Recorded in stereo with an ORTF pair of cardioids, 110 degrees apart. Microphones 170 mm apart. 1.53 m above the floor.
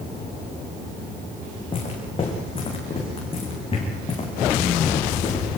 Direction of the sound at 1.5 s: 35° left.